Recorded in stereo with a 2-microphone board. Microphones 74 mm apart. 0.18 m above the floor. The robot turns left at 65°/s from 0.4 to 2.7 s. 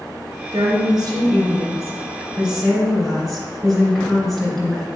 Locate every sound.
0.5 s a woman speaking: 45° right, 2.5 m; by 4.8 s 175° left, 2.5 m